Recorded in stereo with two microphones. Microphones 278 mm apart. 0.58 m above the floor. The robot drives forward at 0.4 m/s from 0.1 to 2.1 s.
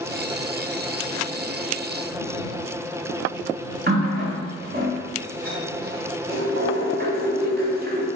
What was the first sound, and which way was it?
A running tap, 35° right (ahead or behind).